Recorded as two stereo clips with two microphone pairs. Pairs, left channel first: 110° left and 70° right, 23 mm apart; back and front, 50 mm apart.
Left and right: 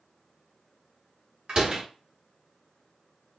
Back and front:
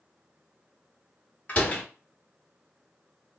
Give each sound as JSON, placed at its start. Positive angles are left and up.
{"t": 1.5, "sound": "a door slam", "azimuth_deg": -120, "distance_m": 1.3}